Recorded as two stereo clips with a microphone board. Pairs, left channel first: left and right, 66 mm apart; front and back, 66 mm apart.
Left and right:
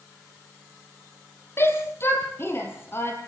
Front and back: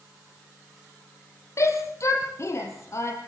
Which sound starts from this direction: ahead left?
A shout, at 1.6 s.